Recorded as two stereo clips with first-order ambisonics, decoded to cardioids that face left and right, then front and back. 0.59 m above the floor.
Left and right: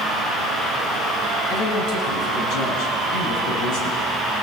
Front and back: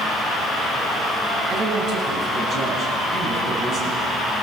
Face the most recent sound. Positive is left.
turn(degrees=115)